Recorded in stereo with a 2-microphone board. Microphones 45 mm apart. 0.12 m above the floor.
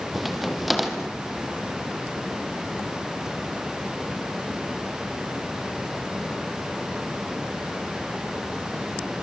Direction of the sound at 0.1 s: Centre (ahead or behind).